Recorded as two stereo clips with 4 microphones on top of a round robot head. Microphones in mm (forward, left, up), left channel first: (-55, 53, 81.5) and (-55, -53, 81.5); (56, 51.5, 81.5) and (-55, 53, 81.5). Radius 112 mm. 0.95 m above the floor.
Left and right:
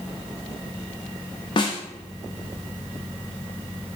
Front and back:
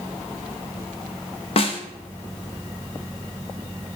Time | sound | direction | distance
1.6 | a snare drum | 30° left | 0.9 m